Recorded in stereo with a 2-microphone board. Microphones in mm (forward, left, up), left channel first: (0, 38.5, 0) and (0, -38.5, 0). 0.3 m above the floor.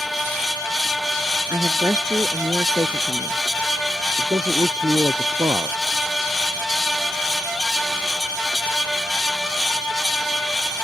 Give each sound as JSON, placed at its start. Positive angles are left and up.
{"t": 1.5, "sound": "a woman speaking", "side_deg": -50}
{"t": 4.2, "sound": "a man speaking", "side_deg": -55}